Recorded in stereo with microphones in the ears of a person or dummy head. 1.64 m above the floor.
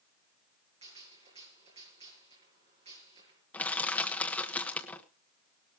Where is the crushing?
5° left (ahead or behind), 1.4 m.